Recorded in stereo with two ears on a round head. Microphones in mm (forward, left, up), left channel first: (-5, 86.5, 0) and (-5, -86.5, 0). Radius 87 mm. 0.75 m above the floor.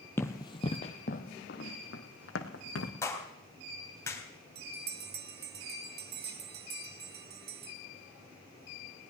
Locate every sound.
0.2 s running footsteps: 10° left (ahead or behind), 1.3 m; by 2.9 s 70° left (ahead or behind), 2.5 m
3.0 s a clap: 15° left (ahead or behind), 3.5 m
4.5 s a bell: 55° right (ahead or behind), 1.6 m